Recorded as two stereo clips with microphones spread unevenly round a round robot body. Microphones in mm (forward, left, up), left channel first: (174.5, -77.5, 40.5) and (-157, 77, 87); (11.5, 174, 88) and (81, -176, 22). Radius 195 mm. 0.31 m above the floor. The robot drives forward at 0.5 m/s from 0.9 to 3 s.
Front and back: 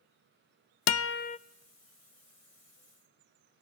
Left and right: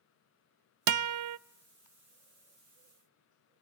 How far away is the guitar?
About 0.6 m.